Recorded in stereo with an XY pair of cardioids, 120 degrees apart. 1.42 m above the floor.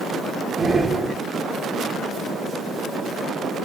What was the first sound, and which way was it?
Breathing, 15° right.